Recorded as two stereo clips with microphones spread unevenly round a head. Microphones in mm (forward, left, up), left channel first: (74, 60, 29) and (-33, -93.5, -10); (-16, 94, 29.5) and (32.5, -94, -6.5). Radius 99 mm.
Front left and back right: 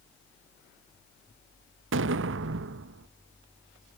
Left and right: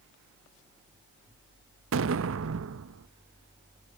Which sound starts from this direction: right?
An explosion, at 1.9 s.